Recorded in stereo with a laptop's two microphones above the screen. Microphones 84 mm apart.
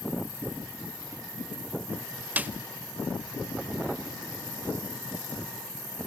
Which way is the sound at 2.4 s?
20° right (ahead or behind).